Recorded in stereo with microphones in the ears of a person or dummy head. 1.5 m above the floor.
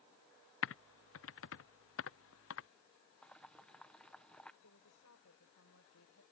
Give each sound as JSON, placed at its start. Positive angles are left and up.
{"t": 0.6, "sound": "typing on a keyboard", "side_deg": 60}
{"t": 3.2, "sound": "boiling", "side_deg": 5}
{"t": 4.6, "sound": "a woman speaking", "side_deg": 80}